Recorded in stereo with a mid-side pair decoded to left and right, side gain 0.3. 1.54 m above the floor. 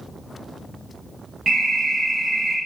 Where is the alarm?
35° right, 1.3 m.